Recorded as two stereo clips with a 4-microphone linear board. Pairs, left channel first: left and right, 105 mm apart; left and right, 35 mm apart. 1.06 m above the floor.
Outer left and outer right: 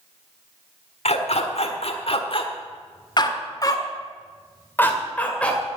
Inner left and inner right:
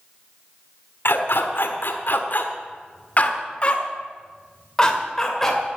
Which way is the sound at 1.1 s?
75° left (ahead or behind).